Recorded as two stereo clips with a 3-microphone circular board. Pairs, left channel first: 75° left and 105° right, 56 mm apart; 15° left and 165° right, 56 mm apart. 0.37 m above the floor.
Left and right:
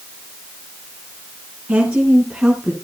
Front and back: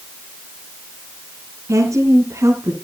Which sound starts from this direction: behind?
A woman speaking, at 1.7 s.